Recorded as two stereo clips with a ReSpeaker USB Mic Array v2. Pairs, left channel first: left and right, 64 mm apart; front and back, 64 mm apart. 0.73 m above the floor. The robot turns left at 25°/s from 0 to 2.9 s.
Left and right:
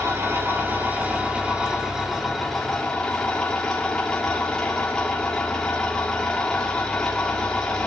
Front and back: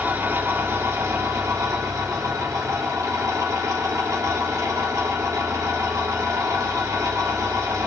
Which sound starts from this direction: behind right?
An engine running, at 0.0 s.